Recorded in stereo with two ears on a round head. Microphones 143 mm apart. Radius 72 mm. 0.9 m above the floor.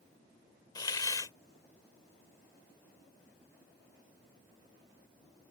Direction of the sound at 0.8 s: 25° left (ahead or behind).